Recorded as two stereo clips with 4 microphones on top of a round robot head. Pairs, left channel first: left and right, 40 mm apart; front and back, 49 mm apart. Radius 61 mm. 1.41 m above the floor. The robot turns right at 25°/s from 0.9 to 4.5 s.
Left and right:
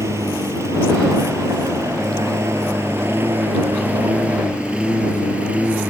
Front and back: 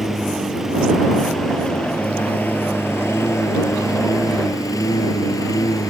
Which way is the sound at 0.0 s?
95° right.